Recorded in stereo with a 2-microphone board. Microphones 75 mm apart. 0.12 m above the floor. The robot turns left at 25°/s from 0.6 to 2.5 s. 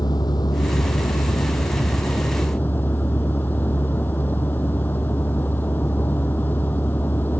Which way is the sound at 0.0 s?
75° left.